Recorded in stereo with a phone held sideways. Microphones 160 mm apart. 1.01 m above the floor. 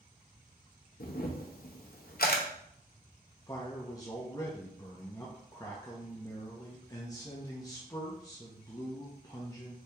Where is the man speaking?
25° left (ahead or behind), 0.7 m.